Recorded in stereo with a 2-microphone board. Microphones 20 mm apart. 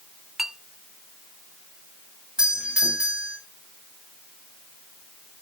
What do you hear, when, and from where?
0.4 s a clink: 10° right (ahead or behind), 1.1 m
2.4 s a doorbell: 50° right (ahead or behind), 7 m